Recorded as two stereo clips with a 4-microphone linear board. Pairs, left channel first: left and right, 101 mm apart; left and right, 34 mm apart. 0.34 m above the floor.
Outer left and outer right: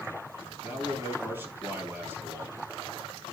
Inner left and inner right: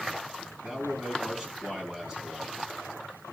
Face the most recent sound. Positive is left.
turn(degrees=-20)  # may be behind; listen again after turning